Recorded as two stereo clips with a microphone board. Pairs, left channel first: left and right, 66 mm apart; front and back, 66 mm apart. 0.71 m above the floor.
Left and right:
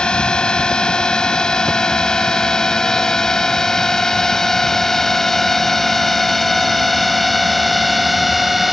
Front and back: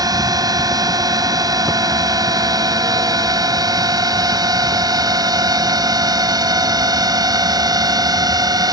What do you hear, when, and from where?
0.0 s a drone: 165° left; by 8.7 s straight behind